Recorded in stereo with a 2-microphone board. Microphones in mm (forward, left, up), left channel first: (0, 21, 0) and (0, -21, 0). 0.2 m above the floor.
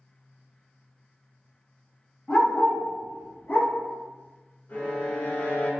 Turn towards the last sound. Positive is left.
turn(degrees=50)  # may be behind; listen again after turning